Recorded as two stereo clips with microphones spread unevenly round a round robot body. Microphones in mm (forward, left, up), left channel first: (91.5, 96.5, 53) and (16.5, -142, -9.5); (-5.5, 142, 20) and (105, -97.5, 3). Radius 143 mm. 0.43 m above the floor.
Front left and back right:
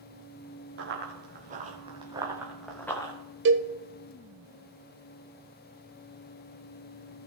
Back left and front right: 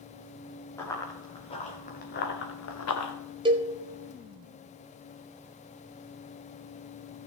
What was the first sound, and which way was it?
Running footsteps, 165° right.